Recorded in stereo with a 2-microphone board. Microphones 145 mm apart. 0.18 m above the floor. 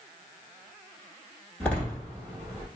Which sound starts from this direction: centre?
A door slam, at 1.6 s.